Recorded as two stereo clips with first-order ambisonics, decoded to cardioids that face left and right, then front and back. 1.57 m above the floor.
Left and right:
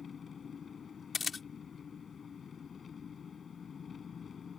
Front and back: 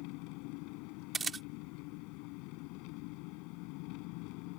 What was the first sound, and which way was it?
An engine running, 20° left.